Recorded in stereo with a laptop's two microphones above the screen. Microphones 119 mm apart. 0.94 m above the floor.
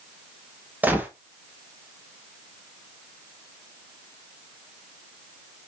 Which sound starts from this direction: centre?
A gunshot, at 0.8 s.